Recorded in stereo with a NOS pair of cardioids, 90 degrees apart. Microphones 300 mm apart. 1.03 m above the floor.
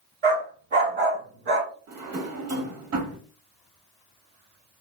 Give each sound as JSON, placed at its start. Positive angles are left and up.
{"t": 0.2, "sound": "a dog barking", "azimuth_deg": -40, "distance_m": 1.2}
{"t": 1.9, "sound": "a drawer", "azimuth_deg": -60, "distance_m": 1.2}